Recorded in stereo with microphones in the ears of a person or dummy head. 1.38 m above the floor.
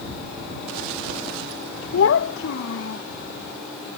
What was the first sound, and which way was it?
A child speaking, 75° left (ahead or behind).